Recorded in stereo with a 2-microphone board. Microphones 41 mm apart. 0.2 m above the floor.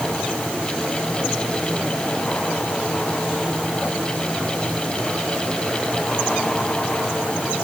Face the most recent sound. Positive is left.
No sound to turn to.